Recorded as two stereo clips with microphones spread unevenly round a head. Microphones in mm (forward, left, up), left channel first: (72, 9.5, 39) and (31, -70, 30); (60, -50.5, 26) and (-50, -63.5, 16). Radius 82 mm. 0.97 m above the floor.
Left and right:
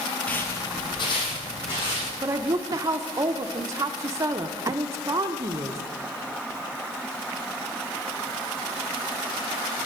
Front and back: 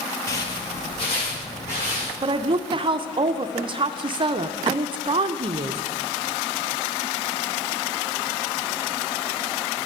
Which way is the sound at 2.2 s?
155° right.